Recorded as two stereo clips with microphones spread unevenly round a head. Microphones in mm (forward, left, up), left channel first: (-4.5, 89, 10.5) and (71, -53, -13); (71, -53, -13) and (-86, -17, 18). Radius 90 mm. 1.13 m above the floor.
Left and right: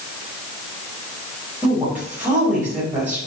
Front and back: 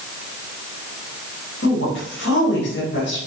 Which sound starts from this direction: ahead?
A woman speaking, at 1.6 s.